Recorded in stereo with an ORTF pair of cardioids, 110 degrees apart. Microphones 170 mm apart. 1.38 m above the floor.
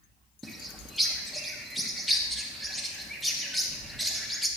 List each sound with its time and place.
0.4 s a bird: straight ahead, 1.1 m